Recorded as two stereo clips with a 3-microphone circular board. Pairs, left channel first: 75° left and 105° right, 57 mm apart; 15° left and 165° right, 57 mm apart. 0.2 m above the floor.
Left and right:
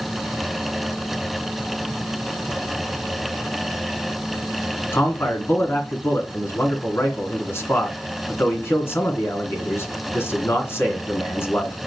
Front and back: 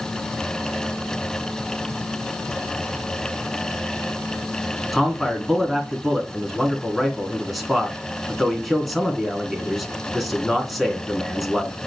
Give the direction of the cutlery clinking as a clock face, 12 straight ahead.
No cutlery clinking in this recording.